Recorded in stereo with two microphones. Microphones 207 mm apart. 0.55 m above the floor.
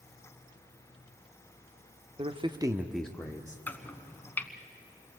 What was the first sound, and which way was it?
A man speaking, 30° right (ahead or behind).